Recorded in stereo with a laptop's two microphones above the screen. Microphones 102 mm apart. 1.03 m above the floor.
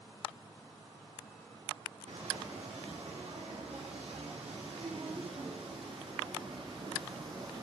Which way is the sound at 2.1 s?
80° right.